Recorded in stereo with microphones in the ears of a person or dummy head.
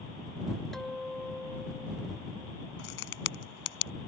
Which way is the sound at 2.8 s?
65° left (ahead or behind).